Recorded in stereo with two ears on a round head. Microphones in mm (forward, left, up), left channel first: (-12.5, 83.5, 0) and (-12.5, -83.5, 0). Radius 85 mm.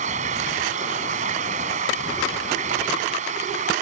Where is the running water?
40° right (ahead or behind).